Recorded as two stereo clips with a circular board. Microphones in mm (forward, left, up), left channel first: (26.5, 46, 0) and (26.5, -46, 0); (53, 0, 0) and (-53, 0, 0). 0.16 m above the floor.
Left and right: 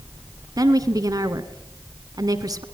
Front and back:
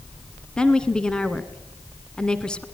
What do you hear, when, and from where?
0.6 s a woman speaking: 80° right, 1.6 m